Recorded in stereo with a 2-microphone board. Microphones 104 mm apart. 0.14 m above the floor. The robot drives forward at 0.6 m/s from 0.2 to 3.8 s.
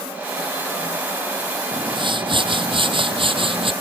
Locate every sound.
1.7 s a whoosh: 55° right (ahead or behind); by 3.7 s 60° right (ahead or behind)